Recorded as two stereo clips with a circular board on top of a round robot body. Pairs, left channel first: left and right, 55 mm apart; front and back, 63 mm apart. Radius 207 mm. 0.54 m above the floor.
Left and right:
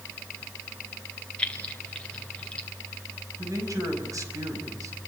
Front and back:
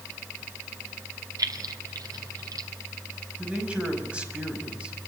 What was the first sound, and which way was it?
Keys jangling, 160° left.